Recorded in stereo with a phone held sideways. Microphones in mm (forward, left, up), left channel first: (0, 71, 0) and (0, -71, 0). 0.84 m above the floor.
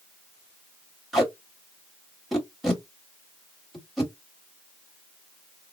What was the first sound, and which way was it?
Tape being pulled, centre (ahead or behind).